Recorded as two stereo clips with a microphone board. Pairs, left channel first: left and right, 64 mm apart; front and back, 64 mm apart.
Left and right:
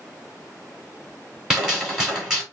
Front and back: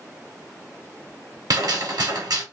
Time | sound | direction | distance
1.5 | a gunshot | 170° right | 2 m